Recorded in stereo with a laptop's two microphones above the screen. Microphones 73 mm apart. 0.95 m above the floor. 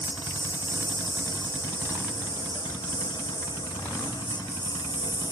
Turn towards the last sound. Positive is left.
turn(degrees=85)